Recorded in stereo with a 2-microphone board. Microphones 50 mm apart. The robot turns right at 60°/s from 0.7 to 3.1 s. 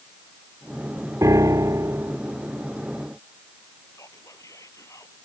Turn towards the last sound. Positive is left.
turn(degrees=80)